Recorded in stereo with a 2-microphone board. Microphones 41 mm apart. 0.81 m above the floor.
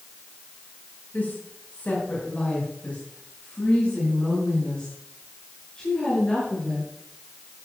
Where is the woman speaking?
45° left (ahead or behind), 4.5 m; by 6.9 s 20° left (ahead or behind), 10 m.